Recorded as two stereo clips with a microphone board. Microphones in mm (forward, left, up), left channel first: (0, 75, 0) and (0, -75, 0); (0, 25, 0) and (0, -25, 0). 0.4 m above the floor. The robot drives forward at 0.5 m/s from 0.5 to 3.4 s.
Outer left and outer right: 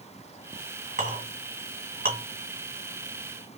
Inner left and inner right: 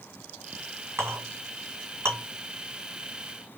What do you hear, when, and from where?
1.0 s a clink: 60° right (ahead or behind), 1.9 m; by 2.2 s 75° right (ahead or behind), 1.7 m